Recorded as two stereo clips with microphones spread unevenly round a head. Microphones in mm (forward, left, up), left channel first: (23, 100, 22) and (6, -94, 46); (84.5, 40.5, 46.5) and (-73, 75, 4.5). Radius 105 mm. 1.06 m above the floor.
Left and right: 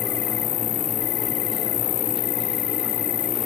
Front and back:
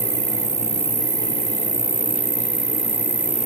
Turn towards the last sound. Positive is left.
turn(degrees=115)